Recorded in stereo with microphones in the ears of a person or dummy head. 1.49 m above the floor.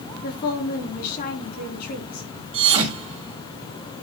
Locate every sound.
0.2 s a woman speaking: 55° left (ahead or behind), 4 m
2.5 s a thud: 35° right (ahead or behind), 2.5 m